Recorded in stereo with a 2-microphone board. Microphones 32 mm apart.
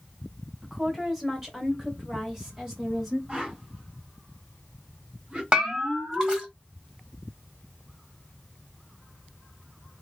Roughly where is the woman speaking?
Centre.